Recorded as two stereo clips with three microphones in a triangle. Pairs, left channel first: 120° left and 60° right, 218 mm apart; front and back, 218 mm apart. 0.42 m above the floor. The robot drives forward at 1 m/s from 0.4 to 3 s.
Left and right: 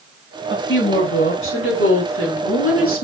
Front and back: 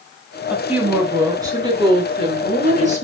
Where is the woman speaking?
95° left, 4 m; by 3.0 s 125° left, 5 m.